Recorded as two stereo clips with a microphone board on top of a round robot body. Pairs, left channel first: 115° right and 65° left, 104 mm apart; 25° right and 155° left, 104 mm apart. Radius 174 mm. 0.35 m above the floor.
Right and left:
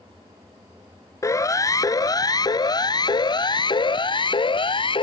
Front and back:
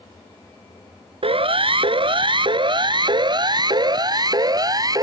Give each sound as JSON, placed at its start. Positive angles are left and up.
{"t": 1.2, "sound": "a siren", "azimuth_deg": -175}